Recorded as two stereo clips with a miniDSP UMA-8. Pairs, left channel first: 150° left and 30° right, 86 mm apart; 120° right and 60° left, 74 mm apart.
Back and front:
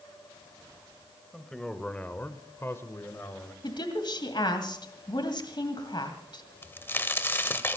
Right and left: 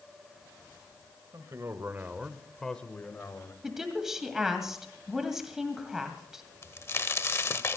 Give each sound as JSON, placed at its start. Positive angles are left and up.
{"t": 1.3, "sound": "a man speaking", "azimuth_deg": 65, "distance_m": 1.6}
{"t": 3.6, "sound": "a woman speaking", "azimuth_deg": 145, "distance_m": 2.0}
{"t": 6.6, "sound": "a crack", "azimuth_deg": -155, "distance_m": 1.0}